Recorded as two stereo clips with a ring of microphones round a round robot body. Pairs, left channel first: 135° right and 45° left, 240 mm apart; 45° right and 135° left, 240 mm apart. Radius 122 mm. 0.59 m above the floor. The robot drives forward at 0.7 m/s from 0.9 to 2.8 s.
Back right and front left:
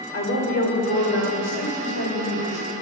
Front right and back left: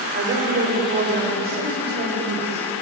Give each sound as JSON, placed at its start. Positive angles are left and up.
{"t": 0.1, "sound": "a woman speaking", "azimuth_deg": -175, "distance_m": 2.5}